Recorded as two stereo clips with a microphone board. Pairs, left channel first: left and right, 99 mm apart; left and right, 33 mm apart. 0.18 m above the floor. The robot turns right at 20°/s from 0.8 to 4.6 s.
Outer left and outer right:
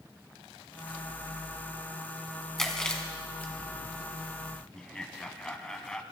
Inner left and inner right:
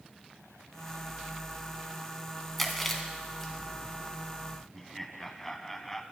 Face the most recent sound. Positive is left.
turn(degrees=5)  # may be behind; listen again after turning